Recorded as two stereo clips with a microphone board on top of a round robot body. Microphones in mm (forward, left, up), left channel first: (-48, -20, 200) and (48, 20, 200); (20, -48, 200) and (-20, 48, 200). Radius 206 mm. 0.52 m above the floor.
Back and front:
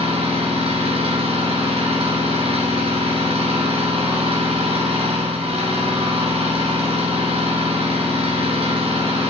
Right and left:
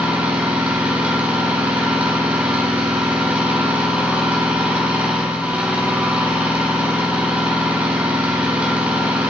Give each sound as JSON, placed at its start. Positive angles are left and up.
{"t": 0.0, "sound": "an engine running", "azimuth_deg": 35, "distance_m": 2.5}